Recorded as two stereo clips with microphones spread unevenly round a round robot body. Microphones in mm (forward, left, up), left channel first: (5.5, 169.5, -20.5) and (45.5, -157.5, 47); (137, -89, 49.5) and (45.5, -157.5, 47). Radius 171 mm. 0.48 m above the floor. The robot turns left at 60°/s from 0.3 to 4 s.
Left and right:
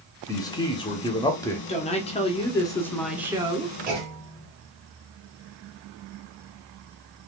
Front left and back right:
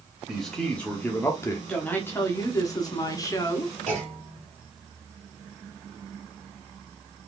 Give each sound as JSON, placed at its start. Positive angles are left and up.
{"t": 0.3, "sound": "a man speaking", "azimuth_deg": 135, "distance_m": 0.8}
{"t": 1.7, "sound": "a woman speaking", "azimuth_deg": 110, "distance_m": 1.0}
{"t": 3.9, "sound": "a clunk", "azimuth_deg": -155, "distance_m": 1.4}